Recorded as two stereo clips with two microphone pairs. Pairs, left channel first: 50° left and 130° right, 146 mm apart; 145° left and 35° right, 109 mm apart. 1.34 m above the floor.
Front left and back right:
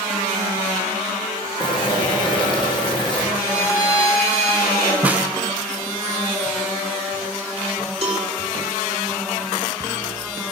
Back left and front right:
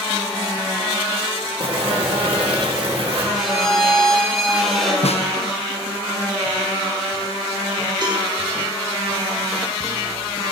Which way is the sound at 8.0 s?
80° right.